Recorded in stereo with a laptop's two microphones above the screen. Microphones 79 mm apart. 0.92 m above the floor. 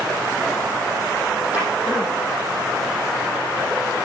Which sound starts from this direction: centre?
A drawer, at 1.5 s.